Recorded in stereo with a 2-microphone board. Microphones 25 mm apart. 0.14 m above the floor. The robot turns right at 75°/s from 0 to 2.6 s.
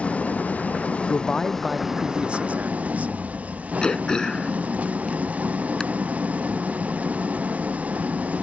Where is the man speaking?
140° left; by 3.1 s 110° right.